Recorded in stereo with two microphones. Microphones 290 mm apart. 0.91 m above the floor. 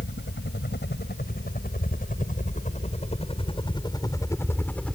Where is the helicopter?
40° left (ahead or behind); by 5.0 s centre (ahead or behind).